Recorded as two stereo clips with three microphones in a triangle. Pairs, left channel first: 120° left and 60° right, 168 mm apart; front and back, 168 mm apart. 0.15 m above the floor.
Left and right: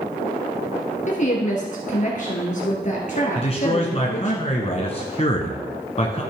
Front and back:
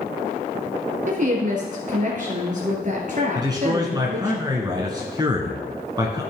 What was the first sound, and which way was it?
A woman speaking, 150° left.